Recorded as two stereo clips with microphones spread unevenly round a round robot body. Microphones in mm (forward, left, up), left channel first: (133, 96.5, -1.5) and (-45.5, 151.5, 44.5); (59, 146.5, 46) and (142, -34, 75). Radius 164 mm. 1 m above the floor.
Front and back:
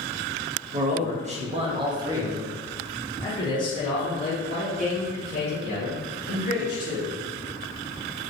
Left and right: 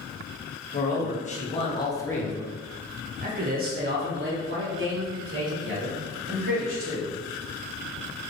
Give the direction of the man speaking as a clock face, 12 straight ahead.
8 o'clock.